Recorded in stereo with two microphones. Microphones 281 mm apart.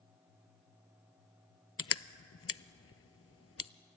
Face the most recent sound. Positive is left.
turn(degrees=55)  # may be behind; listen again after turning